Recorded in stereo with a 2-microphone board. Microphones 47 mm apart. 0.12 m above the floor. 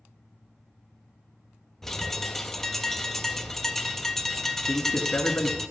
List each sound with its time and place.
1.8 s a bird: 5° left (ahead or behind), 0.5 m
4.7 s a man speaking: 30° left (ahead or behind), 1.2 m